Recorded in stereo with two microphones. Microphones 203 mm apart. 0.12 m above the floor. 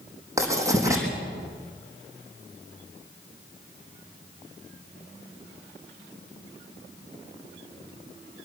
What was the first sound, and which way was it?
Writing, 15° right (ahead or behind).